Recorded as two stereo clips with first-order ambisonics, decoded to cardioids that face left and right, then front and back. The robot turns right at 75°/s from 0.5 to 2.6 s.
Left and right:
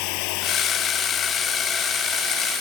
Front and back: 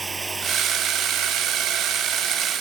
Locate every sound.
0.0 s running water: 105° left; by 2.6 s 95° right